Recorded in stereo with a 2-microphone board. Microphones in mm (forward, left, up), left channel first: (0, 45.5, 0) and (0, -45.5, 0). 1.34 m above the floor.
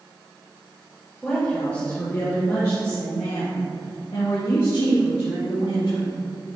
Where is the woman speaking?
5° left (ahead or behind), 2 m; by 6.1 s 75° left (ahead or behind), 4 m.